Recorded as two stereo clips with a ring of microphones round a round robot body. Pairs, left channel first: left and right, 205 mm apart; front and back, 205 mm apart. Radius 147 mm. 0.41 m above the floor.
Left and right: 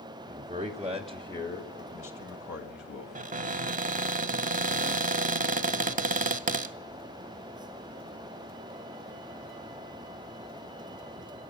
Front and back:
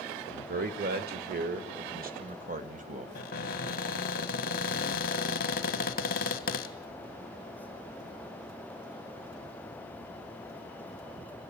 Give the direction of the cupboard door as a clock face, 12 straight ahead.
1 o'clock.